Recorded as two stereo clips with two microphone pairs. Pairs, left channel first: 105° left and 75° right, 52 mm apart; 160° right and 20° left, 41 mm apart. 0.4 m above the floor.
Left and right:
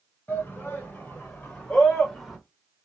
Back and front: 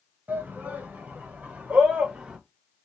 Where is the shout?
50° left, 1.8 m; by 2.4 s 5° left, 1.0 m.